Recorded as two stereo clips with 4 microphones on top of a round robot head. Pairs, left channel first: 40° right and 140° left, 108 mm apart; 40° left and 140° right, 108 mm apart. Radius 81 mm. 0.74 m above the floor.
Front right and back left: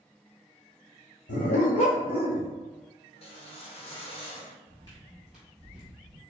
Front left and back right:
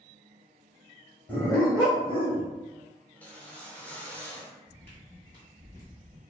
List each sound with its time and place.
1.3 s a dog barking: 35° right, 0.9 m; by 2.5 s 5° left, 1.0 m
3.1 s a whoosh: 35° right, 0.7 m
4.7 s footsteps: 30° right, 0.8 m; by 6.2 s 100° left, 1.1 m